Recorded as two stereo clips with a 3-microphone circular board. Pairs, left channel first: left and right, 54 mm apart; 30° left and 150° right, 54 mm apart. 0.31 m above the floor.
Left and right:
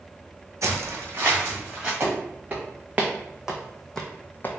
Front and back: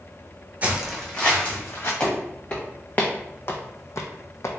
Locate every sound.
0.6 s footsteps: 90° right, 0.8 m; by 1.9 s 15° right, 1.7 m
2.0 s footsteps: 40° right, 1.4 m; by 4.6 s 50° left, 0.6 m